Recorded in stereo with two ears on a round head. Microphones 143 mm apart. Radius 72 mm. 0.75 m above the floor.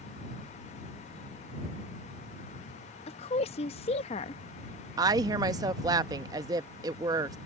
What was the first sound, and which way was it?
A woman speaking, 40° left (ahead or behind).